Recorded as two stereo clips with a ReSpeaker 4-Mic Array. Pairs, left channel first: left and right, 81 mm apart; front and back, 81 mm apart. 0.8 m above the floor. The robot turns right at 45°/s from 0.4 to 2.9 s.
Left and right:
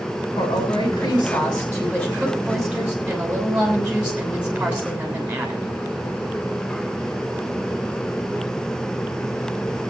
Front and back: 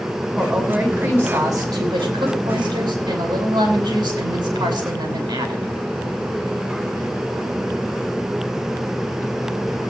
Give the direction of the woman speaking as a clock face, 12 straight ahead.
9 o'clock.